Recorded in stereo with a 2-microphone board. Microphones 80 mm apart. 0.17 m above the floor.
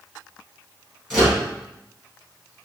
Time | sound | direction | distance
1.1 | a microwave | 5° right (ahead or behind) | 1.9 m